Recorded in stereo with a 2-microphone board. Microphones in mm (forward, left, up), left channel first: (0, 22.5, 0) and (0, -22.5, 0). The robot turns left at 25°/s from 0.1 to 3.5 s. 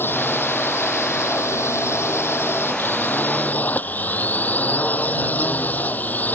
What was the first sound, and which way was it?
A drone, 125° left.